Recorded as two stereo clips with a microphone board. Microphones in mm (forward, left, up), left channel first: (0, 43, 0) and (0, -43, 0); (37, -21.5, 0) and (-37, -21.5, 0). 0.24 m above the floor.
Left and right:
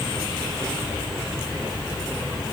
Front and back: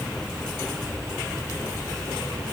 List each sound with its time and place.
Only background noise.